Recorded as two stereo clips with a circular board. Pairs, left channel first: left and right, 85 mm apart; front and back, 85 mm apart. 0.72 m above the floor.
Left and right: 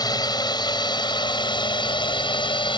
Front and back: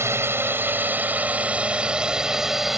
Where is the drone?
120° left; by 2.8 s 95° left.